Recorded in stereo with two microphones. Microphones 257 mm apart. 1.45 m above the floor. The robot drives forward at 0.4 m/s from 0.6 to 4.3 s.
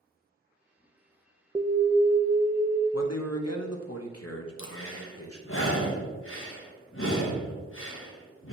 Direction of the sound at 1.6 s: 15° right (ahead or behind).